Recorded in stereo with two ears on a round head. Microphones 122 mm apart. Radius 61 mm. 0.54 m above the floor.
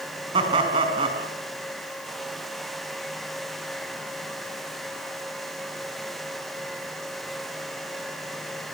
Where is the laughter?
40° right (ahead or behind), 4.5 m.